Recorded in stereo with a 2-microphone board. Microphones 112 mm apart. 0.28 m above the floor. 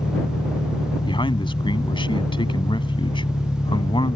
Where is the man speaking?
45° left (ahead or behind).